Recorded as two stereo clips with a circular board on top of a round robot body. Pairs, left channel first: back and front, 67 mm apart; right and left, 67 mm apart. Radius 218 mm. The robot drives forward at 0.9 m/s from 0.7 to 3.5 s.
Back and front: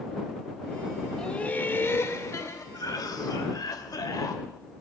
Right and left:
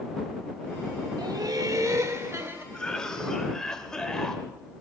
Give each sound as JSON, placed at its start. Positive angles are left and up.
{"t": 1.2, "sound": "laughter", "azimuth_deg": 105, "distance_m": 1.3}
{"t": 2.7, "sound": "a cough", "azimuth_deg": -170, "distance_m": 2.5}